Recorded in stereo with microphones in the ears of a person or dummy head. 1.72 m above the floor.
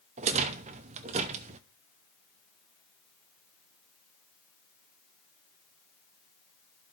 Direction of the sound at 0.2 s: 35° right (ahead or behind).